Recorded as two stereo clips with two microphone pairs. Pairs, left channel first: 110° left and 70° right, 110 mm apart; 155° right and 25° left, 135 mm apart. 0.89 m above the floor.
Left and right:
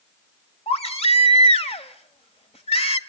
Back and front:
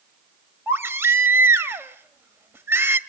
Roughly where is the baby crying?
Left.